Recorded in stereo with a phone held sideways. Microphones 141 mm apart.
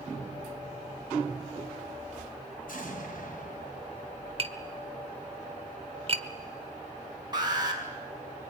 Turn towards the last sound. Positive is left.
turn(degrees=-30)  # may be behind; listen again after turning